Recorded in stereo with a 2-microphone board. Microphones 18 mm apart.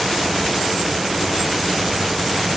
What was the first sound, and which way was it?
Only background noise.